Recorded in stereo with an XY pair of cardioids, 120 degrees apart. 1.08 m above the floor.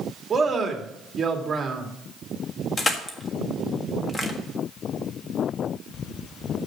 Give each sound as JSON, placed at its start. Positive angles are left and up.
{"t": 0.3, "sound": "a man speaking", "azimuth_deg": -25, "distance_m": 2.0}
{"t": 2.8, "sound": "crushing", "azimuth_deg": 25, "distance_m": 1.6}